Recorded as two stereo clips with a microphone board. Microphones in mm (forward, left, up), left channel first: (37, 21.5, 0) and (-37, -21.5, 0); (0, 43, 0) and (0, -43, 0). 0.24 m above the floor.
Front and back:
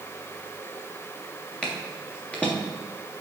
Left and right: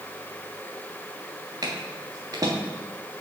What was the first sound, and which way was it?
Footsteps, 45° right.